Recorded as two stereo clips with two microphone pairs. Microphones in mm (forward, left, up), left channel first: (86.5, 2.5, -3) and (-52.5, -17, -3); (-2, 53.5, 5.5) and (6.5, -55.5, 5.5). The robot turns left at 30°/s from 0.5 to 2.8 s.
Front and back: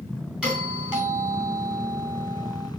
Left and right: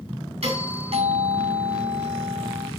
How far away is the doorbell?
About 5.5 m.